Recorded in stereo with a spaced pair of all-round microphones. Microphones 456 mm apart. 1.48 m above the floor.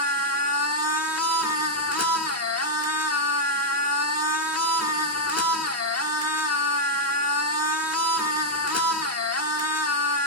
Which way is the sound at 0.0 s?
35° left (ahead or behind).